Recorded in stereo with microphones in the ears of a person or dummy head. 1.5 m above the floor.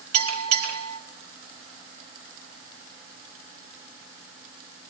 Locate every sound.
0.1 s a bell: 80° right, 4 m